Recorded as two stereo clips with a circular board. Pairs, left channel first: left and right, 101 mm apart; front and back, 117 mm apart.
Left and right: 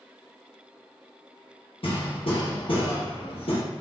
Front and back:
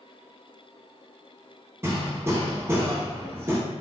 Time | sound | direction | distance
1.8 | hammering | 115° left | 0.8 m